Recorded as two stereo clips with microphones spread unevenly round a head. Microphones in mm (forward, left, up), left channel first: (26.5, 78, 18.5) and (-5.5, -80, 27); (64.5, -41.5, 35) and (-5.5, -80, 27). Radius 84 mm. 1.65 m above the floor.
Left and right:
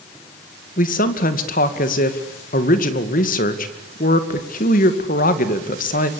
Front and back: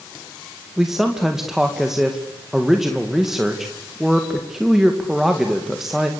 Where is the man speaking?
120° left, 2.5 m.